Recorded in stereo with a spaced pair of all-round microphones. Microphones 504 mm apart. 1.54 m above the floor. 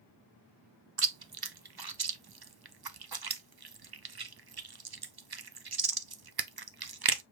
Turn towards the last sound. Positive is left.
turn(degrees=-50)  # may be behind; listen again after turning